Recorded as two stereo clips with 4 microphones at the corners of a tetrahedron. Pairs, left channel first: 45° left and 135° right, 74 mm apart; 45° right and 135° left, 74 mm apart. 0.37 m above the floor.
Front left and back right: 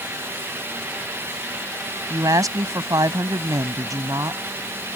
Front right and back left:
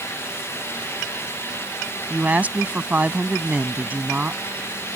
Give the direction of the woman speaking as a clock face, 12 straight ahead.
5 o'clock.